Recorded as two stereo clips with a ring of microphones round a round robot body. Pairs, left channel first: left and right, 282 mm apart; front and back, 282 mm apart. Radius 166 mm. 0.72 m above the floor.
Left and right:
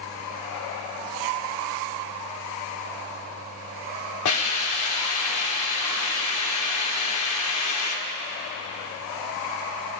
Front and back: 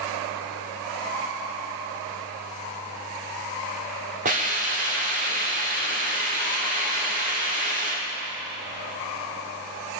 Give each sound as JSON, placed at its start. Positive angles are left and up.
{"t": 4.2, "sound": "a hiss", "azimuth_deg": 115, "distance_m": 2.5}